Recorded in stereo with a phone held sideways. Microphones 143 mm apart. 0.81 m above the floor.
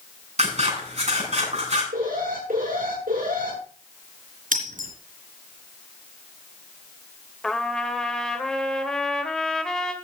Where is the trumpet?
5° left (ahead or behind), 1.5 m.